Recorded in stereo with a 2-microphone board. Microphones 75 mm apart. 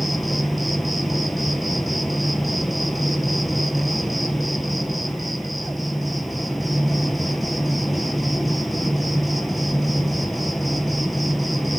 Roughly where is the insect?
Centre.